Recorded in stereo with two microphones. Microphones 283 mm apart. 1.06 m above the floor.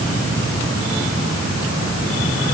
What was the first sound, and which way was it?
Only background noise.